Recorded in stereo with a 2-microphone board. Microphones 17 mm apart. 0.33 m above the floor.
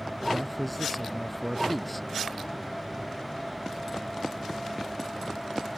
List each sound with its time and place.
0.3 s a man speaking: 10° left (ahead or behind)